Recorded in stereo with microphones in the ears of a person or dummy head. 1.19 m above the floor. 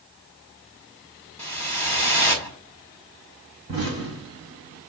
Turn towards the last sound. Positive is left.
turn(degrees=-30)  # may be behind; listen again after turning